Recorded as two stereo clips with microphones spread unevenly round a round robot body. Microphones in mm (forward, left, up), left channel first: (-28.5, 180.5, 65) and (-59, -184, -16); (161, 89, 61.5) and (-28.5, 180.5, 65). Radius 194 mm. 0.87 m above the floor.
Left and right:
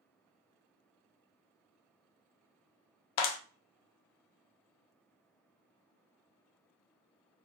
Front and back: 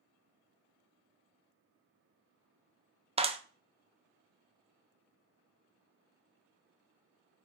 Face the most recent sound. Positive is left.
turn(degrees=90)